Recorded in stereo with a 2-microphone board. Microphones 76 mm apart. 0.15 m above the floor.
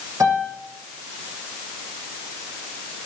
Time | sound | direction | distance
0.2 | a piano | 50° right (ahead or behind) | 7.5 m